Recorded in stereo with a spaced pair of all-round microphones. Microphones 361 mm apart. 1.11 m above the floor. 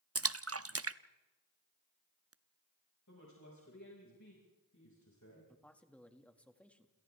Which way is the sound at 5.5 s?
5° left (ahead or behind).